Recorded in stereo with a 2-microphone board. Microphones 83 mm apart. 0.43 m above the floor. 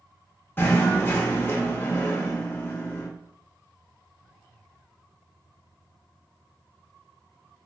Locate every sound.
0.6 s knocking: 25° left (ahead or behind), 0.6 m